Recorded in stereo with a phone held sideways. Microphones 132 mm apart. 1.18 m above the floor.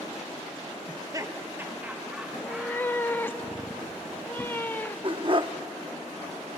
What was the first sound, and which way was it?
Laughter, 40° right (ahead or behind).